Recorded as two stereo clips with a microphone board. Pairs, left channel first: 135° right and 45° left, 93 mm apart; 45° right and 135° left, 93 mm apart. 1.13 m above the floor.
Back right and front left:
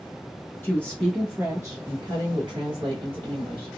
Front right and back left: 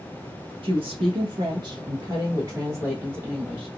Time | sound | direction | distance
0.6 | a woman speaking | 155° left | 0.9 m